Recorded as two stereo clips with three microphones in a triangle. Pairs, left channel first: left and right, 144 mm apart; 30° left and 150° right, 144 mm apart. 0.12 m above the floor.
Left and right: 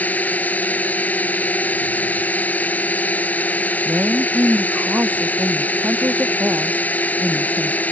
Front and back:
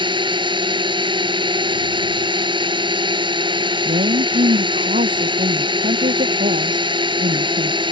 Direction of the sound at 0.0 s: 165° left.